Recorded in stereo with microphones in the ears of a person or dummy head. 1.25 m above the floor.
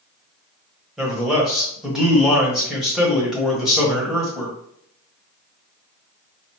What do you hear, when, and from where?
1.0 s a man speaking: centre (ahead or behind), 1.1 m